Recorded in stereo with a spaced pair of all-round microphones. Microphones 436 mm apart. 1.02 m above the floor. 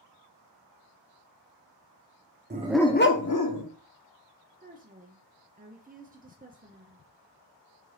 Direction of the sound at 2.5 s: 25° right (ahead or behind).